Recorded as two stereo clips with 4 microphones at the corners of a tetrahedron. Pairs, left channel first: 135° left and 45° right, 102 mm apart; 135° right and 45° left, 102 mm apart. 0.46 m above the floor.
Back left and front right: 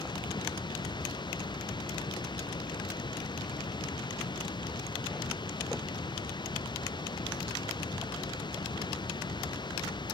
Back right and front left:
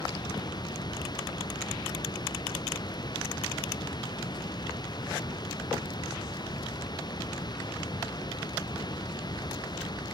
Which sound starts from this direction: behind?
Running water, at 0.0 s.